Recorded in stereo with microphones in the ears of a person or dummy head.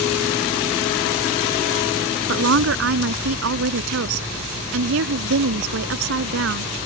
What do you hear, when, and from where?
2.3 s a woman speaking: 70° right (ahead or behind)